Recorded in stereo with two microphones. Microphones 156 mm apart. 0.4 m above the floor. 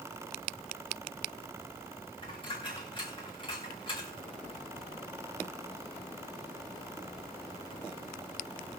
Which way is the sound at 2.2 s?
35° left (ahead or behind).